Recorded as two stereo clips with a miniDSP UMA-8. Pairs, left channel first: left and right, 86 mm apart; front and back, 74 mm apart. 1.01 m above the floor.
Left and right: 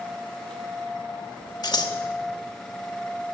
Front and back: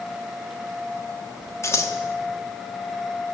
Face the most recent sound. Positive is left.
turn(degrees=50)